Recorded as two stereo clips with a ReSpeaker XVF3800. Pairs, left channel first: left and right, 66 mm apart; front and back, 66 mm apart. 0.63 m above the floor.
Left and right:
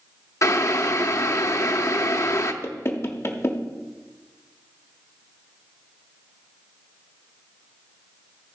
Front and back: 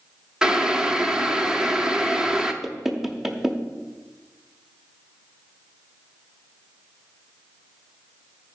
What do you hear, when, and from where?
0.4 s boiling: 105° left, 0.7 m
2.6 s knocking: 95° left, 0.8 m